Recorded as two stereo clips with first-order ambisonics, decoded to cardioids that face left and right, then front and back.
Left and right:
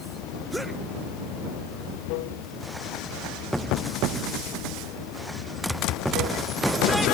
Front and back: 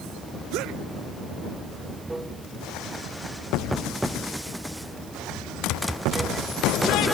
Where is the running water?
95° left.